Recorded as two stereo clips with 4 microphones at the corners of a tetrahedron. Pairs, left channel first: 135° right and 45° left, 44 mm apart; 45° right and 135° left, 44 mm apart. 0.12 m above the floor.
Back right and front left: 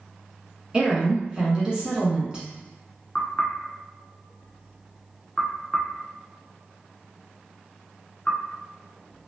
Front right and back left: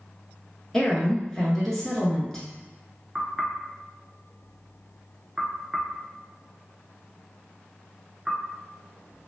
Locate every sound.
0.7 s a woman speaking: 20° left, 1.1 m
3.1 s knocking: 155° right, 0.8 m